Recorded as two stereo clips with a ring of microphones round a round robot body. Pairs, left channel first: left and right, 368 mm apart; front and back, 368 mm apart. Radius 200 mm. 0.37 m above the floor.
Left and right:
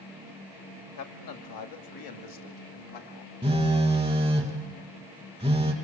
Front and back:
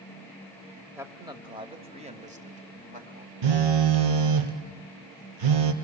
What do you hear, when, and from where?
1.0 s a man speaking: 100° left, 1.6 m; by 3.3 s 115° left, 3 m
3.4 s a phone buzzing: 170° right, 1.7 m